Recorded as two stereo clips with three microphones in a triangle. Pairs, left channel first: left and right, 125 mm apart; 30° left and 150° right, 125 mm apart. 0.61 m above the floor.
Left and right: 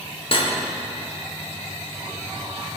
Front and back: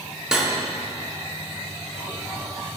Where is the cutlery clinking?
125° left, 0.7 m.